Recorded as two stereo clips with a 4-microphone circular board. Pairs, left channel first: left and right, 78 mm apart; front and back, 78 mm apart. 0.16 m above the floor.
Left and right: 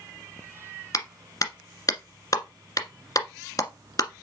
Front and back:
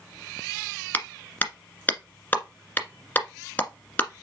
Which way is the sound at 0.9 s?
65° left.